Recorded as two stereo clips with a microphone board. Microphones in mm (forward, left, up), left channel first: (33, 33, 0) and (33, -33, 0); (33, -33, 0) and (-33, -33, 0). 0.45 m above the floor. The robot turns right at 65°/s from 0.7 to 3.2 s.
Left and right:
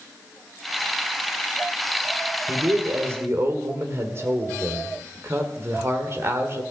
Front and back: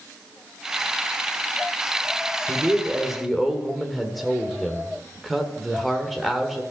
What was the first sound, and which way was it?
A man speaking, 135° right.